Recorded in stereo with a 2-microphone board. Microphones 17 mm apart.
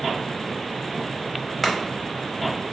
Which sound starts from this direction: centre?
Chopping, at 1.6 s.